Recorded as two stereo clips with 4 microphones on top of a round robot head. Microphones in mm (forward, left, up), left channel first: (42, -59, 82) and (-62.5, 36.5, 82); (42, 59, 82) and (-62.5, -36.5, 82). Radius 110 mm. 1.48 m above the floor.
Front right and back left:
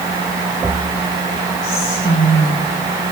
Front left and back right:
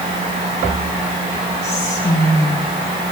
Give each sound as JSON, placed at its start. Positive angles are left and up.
{"t": 1.6, "sound": "whispering", "azimuth_deg": -30, "distance_m": 5.0}